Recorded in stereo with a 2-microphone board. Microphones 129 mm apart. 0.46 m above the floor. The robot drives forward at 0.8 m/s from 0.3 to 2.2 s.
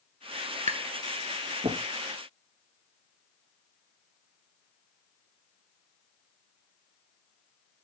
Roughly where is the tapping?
Right.